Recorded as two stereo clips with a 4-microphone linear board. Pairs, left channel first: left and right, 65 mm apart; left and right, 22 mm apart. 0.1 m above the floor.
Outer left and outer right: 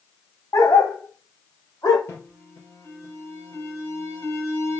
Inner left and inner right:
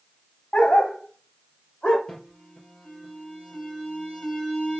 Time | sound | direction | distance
0.5 | a dog barking | 60° left (ahead or behind) | 4.5 m
2.1 | an alarm | 35° left (ahead or behind) | 3.5 m